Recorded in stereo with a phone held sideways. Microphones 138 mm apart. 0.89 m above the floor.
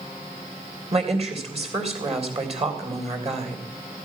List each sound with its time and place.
0.9 s a woman speaking: 45° right (ahead or behind), 3 m